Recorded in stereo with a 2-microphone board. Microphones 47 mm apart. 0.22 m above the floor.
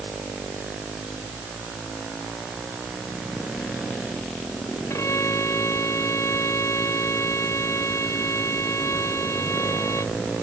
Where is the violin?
70° left (ahead or behind).